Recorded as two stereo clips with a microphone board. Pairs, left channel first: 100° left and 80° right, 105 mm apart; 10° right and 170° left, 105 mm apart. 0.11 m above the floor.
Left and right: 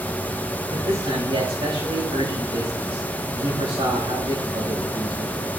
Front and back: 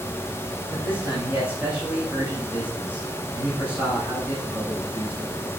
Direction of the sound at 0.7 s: 115° right.